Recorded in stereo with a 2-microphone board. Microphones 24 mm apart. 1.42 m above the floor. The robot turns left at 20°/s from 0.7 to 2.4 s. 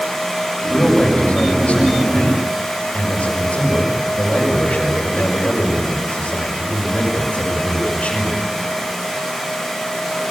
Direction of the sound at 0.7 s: 135° left.